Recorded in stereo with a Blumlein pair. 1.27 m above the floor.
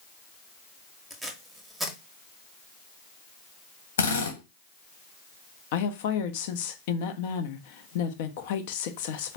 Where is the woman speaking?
50° left, 0.8 m.